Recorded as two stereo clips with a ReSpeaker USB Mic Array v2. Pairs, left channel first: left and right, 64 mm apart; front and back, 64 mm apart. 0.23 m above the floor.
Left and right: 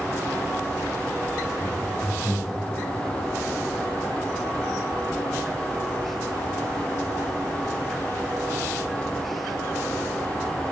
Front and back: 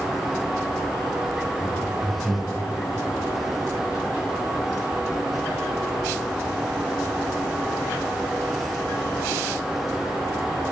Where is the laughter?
20° left, 4 m; by 2.6 s 10° left, 4.5 m.